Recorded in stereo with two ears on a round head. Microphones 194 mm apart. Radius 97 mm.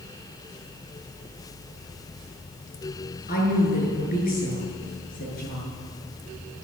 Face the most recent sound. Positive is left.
turn(degrees=40)  # may be behind; listen again after turning